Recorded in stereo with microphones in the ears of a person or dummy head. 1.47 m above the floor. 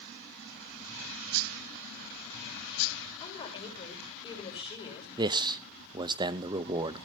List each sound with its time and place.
3.2 s a woman speaking: 20° left (ahead or behind), 5.5 m
5.2 s a man speaking: 25° right (ahead or behind), 0.6 m